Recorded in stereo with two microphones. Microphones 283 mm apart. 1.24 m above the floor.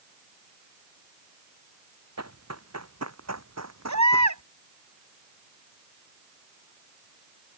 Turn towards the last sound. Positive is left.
turn(degrees=-85)